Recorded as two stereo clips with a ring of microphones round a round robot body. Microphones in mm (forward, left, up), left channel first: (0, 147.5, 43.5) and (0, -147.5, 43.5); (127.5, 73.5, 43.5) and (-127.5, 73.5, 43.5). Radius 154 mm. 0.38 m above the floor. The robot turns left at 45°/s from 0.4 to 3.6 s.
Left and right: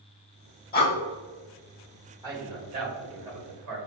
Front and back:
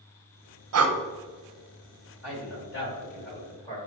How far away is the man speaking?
About 1.8 m.